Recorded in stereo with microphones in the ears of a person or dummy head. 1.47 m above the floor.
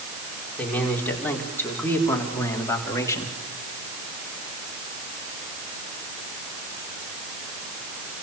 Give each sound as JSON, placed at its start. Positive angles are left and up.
{"t": 0.6, "sound": "a man speaking", "side_deg": 5, "distance_m": 5.0}